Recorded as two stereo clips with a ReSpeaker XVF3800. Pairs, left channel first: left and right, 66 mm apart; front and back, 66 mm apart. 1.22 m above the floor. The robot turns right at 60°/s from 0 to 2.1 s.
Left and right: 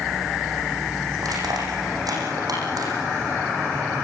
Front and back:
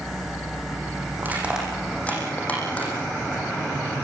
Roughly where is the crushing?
Behind right.